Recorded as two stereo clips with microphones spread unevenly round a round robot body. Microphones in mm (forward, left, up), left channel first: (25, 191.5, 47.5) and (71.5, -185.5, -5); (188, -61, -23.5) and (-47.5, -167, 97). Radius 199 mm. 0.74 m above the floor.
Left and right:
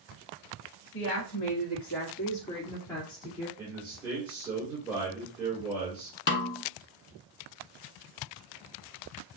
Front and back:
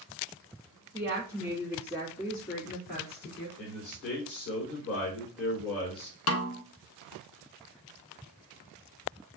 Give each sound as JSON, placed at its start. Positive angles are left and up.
{"t": 0.9, "sound": "a woman speaking", "azimuth_deg": 90, "distance_m": 1.4}
{"t": 3.6, "sound": "a man speaking", "azimuth_deg": 0, "distance_m": 3.0}
{"t": 6.3, "sound": "a snare drum", "azimuth_deg": 30, "distance_m": 0.5}